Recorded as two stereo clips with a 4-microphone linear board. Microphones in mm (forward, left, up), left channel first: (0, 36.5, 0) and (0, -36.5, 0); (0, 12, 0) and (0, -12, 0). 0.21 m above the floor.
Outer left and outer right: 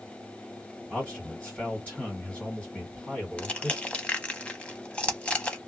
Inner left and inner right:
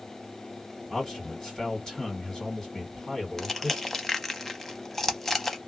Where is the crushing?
15° left (ahead or behind), 0.6 m.